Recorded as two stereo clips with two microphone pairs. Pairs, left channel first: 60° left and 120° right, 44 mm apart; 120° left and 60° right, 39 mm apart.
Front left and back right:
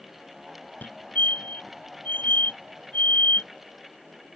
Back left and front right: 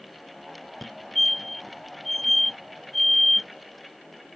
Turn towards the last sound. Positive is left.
turn(degrees=35)